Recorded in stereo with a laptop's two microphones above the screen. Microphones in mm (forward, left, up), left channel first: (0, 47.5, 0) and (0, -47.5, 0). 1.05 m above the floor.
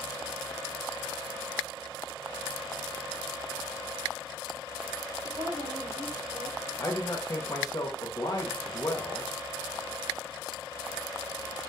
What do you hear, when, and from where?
5.2 s a woman speaking: 70° right (ahead or behind), 1.7 m
6.8 s a man speaking: 40° left (ahead or behind), 0.7 m